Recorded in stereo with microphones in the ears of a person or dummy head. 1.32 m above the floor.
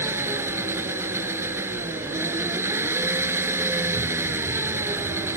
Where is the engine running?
15° right (ahead or behind).